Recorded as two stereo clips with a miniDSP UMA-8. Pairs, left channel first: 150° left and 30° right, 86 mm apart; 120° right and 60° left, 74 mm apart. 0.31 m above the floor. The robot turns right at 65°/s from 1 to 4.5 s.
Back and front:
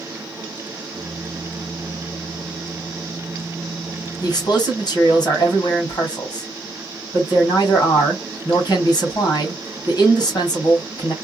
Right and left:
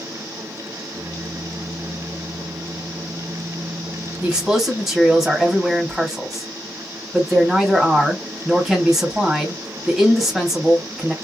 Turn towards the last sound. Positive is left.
turn(degrees=140)